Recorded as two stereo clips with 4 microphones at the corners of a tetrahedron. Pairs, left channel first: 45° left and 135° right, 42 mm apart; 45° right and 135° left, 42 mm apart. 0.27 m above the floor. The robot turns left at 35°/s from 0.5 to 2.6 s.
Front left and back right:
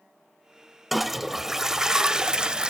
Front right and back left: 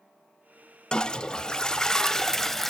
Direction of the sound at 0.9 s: 50° right.